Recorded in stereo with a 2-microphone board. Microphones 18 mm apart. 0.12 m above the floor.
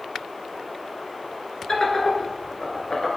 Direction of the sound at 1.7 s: 30° left (ahead or behind).